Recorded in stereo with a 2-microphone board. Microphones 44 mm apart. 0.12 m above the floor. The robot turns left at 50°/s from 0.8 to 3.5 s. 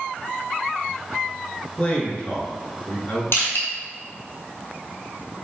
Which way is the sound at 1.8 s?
155° left.